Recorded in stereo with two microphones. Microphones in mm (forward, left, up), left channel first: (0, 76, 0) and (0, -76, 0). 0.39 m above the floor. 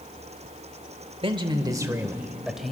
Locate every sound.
1.2 s a man speaking: 35° right (ahead or behind), 1.3 m; by 2.7 s centre (ahead or behind), 1.7 m